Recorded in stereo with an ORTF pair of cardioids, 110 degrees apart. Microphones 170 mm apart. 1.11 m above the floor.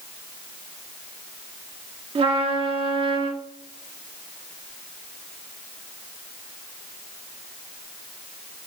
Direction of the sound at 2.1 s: 30° right.